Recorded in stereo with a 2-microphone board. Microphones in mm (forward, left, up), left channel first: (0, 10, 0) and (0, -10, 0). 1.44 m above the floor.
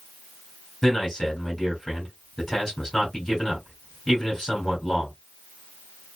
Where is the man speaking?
20° left (ahead or behind), 3 m.